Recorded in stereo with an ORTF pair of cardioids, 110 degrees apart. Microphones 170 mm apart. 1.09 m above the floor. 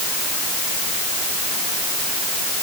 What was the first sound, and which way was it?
Only background noise.